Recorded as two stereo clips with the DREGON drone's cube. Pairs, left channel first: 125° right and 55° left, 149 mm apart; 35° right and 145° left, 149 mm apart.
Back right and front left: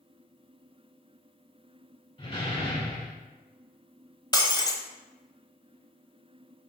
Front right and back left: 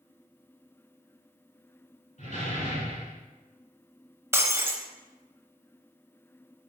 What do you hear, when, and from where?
2.2 s a door slam: 75° right, 2 m
4.3 s breaking glass: 160° right, 1.0 m